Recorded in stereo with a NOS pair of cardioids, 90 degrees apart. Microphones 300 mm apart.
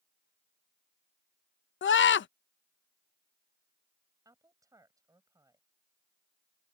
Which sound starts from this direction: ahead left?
A scream, at 1.8 s.